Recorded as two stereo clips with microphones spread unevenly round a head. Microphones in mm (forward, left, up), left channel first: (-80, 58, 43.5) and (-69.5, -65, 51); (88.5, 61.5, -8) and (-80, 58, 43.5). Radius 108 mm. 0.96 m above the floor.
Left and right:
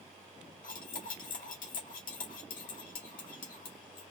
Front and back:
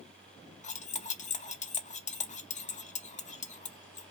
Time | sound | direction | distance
0.6 | cutlery clinking | 55° left | 0.8 m